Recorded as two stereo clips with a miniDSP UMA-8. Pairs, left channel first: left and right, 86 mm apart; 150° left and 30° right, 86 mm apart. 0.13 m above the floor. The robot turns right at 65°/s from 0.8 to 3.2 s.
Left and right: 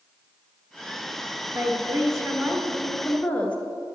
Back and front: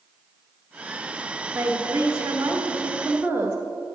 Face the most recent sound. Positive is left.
turn(degrees=25)